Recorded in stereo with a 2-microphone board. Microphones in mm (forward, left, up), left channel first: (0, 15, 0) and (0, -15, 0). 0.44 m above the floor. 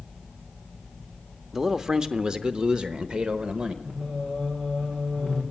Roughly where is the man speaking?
Centre.